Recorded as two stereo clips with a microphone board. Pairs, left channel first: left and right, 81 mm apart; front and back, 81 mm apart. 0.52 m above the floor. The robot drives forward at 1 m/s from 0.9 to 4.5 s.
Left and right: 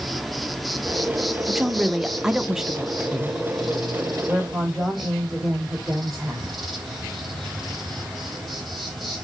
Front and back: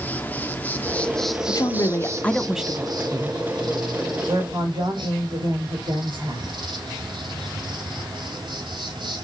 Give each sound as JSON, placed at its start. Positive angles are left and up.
{"t": 0.0, "sound": "an insect", "azimuth_deg": 0, "distance_m": 1.2}
{"t": 1.5, "sound": "a woman speaking", "azimuth_deg": -5, "distance_m": 1.3}